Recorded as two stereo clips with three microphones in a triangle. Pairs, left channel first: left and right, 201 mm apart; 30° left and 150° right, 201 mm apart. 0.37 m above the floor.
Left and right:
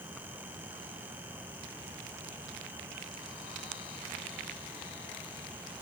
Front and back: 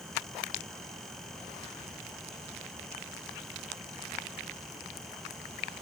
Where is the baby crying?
No baby crying in this recording.